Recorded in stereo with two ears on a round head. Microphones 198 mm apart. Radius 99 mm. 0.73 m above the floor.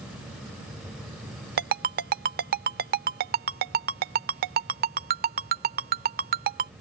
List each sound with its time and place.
1.6 s a ringtone: 45° right (ahead or behind)